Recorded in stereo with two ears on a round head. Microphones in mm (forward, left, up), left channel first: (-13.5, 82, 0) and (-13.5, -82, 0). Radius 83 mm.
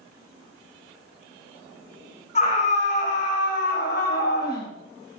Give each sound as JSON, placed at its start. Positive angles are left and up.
{"t": 2.4, "sound": "a scream", "side_deg": 40, "distance_m": 3.0}